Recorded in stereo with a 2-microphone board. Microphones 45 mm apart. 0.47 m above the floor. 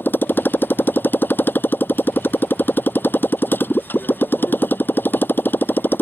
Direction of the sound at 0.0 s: 50° left (ahead or behind).